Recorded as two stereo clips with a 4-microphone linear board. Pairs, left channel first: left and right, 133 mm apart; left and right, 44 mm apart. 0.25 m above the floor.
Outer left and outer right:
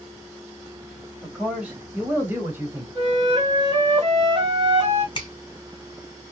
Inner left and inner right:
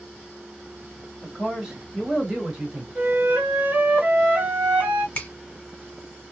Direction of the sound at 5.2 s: 35° left (ahead or behind).